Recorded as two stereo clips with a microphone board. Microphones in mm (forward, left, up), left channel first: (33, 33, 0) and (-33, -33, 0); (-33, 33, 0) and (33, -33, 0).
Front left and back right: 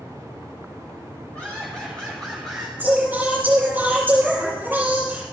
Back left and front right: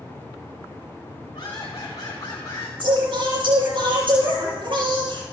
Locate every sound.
1.3 s laughter: 115° left, 3 m; by 2.7 s 140° left, 1.6 m
2.8 s singing: 65° right, 5.5 m